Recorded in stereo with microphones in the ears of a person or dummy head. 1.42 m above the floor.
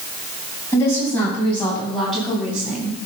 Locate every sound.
0.7 s a woman speaking: 15° left (ahead or behind), 8.5 m; by 3.0 s 10° right (ahead or behind), 8 m